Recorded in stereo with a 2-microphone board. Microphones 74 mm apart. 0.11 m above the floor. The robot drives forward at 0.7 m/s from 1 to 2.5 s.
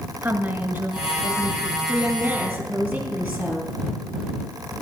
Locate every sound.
0.2 s a woman speaking: 25° right (ahead or behind), 1.4 m; by 1.8 s 20° right (ahead or behind), 1.6 m
1.9 s a woman speaking: 15° right (ahead or behind), 3 m